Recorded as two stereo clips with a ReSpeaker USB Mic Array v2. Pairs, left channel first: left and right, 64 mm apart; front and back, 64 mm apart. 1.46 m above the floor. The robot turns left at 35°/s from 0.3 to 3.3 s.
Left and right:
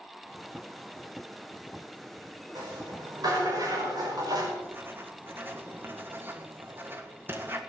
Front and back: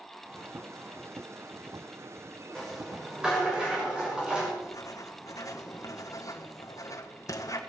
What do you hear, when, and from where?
2.5 s a rattle: 80° right, 6 m; by 4.5 s 105° right, 6 m
4.6 s writing: 30° right, 1.7 m